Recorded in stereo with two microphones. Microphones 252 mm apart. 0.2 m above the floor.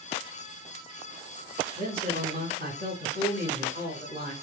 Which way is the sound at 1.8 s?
35° right (ahead or behind).